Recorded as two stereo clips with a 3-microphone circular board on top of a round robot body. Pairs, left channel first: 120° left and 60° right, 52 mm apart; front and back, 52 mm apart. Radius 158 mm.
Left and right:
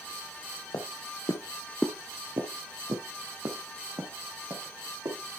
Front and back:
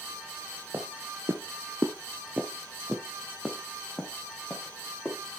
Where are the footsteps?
125° left, 1.4 m; by 5.2 s 80° right, 4.5 m.